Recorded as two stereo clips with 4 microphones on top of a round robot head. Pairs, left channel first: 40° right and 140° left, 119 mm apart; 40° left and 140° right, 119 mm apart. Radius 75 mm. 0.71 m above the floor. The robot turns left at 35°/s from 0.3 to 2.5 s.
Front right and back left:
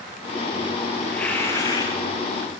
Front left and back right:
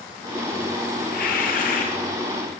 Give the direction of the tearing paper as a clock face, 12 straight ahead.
10 o'clock.